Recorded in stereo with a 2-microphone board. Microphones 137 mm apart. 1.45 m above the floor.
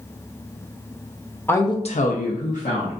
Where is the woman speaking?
15° left (ahead or behind), 0.7 m; by 2.9 s 60° left (ahead or behind), 1.2 m.